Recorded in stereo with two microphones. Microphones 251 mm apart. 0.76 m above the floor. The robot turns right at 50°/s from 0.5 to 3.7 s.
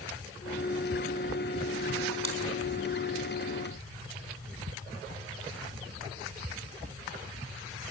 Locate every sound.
2.2 s chewing: 55° left (ahead or behind), 4 m; by 2.4 s 65° left (ahead or behind), 4 m